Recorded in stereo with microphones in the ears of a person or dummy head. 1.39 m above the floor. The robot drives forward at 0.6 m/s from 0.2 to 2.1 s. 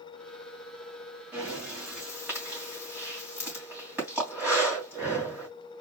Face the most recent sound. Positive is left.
turn(degrees=-5)  # may be behind; listen again after turning